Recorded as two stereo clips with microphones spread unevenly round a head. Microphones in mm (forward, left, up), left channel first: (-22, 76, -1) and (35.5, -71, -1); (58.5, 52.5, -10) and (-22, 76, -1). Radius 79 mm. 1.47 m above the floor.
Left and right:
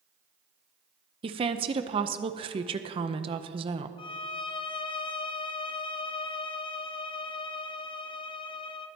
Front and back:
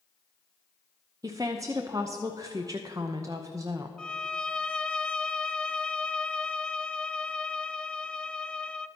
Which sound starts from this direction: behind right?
A woman speaking, at 1.2 s.